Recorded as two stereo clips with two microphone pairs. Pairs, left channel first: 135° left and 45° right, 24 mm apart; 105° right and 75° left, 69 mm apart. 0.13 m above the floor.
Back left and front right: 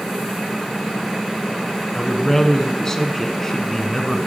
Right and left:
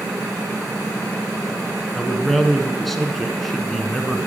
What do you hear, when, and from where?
1.9 s a man speaking: 175° left, 1.0 m